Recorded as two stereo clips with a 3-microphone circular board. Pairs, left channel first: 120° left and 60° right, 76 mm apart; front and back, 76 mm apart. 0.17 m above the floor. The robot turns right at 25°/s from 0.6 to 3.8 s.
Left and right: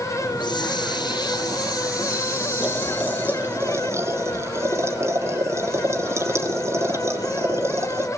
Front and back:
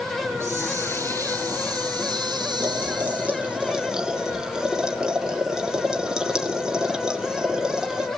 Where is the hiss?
120° left, 2.5 m; by 3.6 s 165° right, 2.5 m.